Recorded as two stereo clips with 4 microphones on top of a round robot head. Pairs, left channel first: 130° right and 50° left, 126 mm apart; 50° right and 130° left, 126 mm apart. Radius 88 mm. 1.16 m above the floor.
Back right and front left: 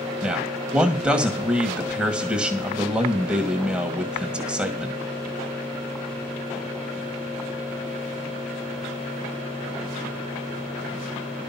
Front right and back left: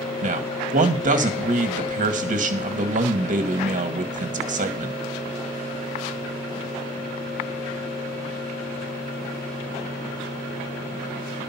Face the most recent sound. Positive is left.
turn(degrees=130)